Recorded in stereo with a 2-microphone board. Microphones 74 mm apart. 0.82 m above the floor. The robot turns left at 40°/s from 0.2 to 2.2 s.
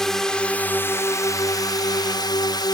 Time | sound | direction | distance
0.0 | a drone | 175° left | ?